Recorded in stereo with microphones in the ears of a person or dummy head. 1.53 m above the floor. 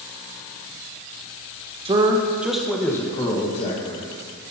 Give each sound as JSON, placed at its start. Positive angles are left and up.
{"t": 1.9, "sound": "a man speaking", "side_deg": -25, "distance_m": 1.3}